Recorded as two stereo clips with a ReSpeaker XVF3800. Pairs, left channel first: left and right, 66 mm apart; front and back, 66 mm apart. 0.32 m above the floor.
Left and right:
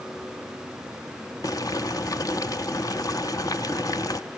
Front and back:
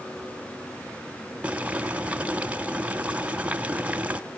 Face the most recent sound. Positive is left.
turn(degrees=110)